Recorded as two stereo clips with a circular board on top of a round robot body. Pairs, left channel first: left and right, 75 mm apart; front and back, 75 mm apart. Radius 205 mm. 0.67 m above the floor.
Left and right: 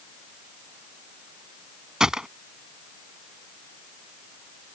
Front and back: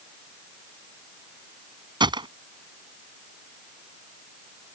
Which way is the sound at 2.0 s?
175° right.